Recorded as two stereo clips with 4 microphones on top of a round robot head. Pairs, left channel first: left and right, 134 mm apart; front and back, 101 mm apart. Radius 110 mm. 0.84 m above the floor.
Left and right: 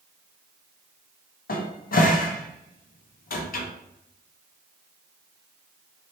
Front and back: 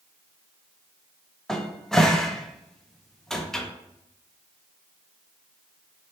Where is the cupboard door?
85° left, 0.7 m.